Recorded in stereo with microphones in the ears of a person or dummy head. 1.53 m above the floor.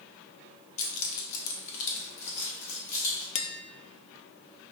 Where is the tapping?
40° left (ahead or behind), 0.5 m.